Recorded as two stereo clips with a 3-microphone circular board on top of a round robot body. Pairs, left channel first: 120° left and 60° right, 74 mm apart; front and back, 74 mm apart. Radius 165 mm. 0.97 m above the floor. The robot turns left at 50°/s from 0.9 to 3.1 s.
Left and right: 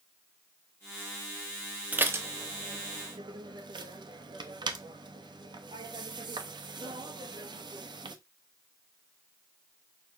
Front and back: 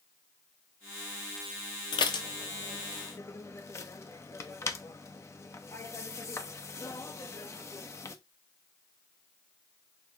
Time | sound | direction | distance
1.9 | dishes clattering | 10° left | 0.7 m